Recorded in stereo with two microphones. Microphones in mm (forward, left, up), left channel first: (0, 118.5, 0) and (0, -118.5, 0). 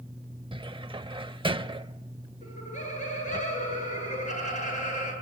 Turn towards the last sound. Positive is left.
turn(degrees=30)  # may be behind; listen again after turning